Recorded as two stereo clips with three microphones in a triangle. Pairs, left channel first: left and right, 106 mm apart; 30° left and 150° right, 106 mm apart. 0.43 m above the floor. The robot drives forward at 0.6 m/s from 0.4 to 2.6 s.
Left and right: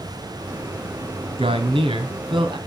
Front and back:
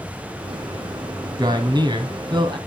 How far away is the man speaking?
About 3 m.